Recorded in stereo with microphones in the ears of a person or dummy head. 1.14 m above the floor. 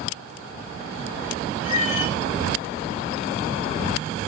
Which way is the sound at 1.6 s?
50° left (ahead or behind).